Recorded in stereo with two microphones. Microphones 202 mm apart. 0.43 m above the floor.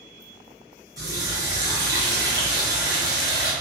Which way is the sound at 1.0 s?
20° right (ahead or behind).